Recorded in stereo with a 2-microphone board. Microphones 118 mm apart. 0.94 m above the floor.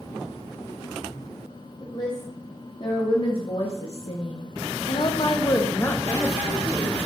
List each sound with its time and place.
1.8 s a woman speaking: 40° left (ahead or behind), 2.5 m; by 6.9 s 5° left (ahead or behind), 1.7 m